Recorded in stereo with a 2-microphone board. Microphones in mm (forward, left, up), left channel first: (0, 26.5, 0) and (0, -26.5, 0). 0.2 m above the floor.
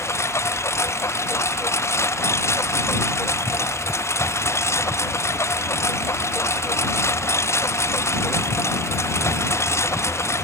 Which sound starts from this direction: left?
A lawn mower, at 0.0 s.